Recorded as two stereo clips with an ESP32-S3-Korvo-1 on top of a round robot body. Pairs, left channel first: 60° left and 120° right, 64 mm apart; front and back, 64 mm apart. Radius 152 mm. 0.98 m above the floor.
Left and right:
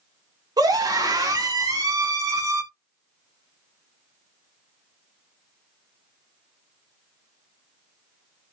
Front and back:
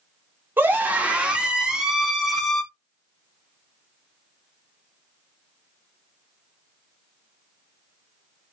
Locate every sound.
0.6 s a scream: 120° right, 3.5 m; by 2.6 s 90° right, 4 m